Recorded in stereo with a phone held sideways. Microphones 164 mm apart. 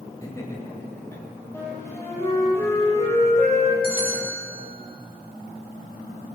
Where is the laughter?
20° left (ahead or behind), 5 m; by 1.2 s 15° left (ahead or behind), 4 m.